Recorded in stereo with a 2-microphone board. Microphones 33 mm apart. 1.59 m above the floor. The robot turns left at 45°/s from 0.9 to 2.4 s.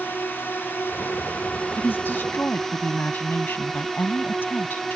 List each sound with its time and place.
0.0 s a drone: 80° left; by 5.0 s 15° left
1.8 s a woman speaking: 75° left (ahead or behind); by 5.0 s 80° left